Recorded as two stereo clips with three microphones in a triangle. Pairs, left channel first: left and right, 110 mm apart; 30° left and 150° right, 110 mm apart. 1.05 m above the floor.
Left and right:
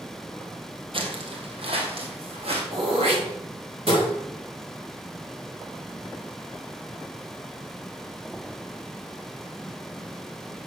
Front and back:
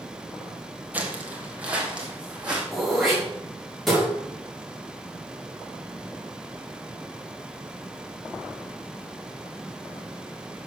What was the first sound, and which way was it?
Footsteps, 80° right.